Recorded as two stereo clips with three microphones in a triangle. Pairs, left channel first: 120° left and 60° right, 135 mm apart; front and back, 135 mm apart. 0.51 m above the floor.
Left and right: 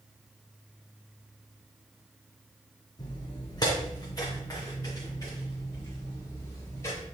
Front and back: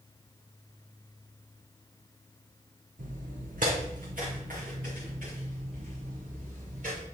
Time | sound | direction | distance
3.0 | footsteps | straight behind | 1.9 m